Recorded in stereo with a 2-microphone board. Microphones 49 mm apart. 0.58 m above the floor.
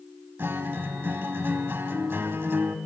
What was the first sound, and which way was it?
A guitar, 50° right (ahead or behind).